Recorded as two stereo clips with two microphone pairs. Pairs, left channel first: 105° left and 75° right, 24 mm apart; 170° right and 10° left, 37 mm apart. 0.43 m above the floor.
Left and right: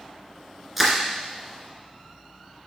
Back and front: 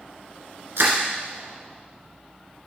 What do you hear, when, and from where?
0.8 s crushing: 10° left, 1.6 m